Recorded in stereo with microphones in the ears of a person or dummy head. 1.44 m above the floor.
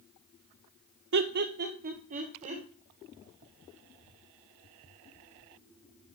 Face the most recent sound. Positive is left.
turn(degrees=-35)  # may be behind; listen again after turning